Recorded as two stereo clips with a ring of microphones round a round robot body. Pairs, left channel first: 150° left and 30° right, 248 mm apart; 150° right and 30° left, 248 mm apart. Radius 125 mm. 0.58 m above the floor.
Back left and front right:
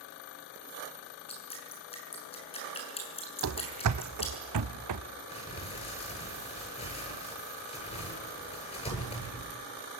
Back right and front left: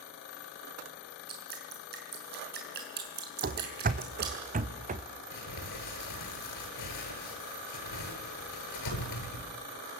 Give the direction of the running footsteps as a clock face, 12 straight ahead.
1 o'clock.